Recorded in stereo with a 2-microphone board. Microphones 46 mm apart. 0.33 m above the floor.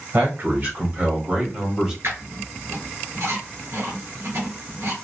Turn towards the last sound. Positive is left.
turn(degrees=-85)